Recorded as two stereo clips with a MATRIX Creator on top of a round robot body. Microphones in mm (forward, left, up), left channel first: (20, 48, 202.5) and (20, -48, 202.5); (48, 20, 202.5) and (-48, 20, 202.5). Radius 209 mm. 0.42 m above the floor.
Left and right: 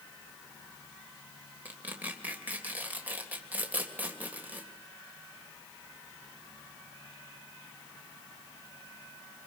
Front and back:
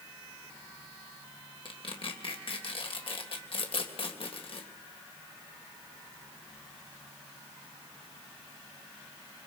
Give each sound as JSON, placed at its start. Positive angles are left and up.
{"t": 1.6, "sound": "tearing paper", "azimuth_deg": -20, "distance_m": 3.5}